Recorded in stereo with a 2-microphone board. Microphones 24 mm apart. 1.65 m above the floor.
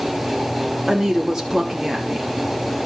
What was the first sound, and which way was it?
A woman speaking, 20° right (ahead or behind).